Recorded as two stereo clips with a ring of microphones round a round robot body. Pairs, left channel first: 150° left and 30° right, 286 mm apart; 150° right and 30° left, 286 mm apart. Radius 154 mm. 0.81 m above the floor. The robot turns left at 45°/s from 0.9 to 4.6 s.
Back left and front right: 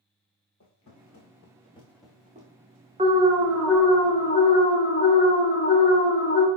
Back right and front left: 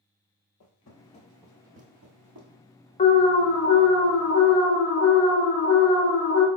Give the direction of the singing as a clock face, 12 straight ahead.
I don't hear singing.